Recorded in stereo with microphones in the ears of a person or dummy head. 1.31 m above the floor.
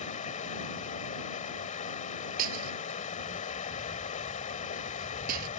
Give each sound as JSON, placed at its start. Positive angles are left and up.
{"t": 0.0, "sound": "running water", "side_deg": 35}
{"t": 2.4, "sound": "breaking glass", "side_deg": -50}